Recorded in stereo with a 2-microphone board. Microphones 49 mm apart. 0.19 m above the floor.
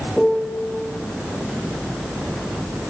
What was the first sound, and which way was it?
A piano, 5° right (ahead or behind).